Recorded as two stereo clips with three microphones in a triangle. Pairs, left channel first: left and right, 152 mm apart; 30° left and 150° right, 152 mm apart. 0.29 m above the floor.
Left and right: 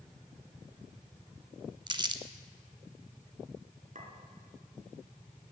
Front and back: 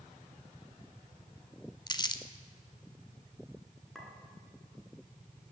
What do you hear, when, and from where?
1.9 s crumpling: 30° right, 0.7 m
4.0 s a clink: 60° right, 2.5 m